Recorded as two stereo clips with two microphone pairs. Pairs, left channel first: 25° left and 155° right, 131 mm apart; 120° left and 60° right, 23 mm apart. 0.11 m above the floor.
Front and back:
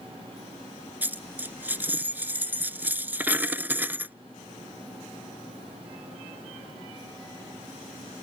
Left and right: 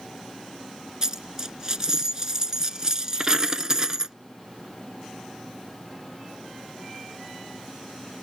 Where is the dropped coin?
90° right.